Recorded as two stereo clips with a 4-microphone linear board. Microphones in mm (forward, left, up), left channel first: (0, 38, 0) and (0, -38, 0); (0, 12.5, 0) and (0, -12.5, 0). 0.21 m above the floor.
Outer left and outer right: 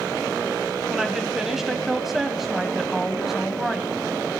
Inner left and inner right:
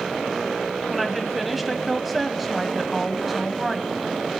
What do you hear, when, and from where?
0.9 s a woman speaking: 5° right (ahead or behind), 1.1 m